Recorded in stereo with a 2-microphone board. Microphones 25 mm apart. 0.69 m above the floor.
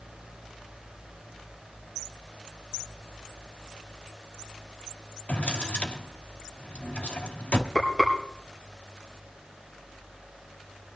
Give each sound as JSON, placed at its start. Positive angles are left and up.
{"t": 5.3, "sound": "a drawer", "side_deg": 65, "distance_m": 1.4}
{"t": 7.8, "sound": "frying", "side_deg": 10, "distance_m": 5.0}